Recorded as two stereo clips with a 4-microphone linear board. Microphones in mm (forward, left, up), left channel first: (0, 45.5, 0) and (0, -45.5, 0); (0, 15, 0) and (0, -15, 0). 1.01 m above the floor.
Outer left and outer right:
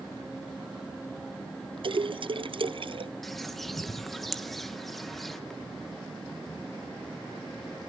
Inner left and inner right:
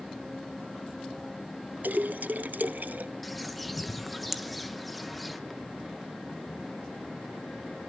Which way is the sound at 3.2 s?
Centre (ahead or behind).